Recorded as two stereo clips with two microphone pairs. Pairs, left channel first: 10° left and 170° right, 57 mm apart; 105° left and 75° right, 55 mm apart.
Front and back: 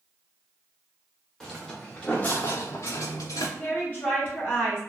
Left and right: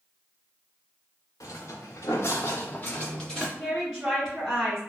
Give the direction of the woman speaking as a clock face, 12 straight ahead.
12 o'clock.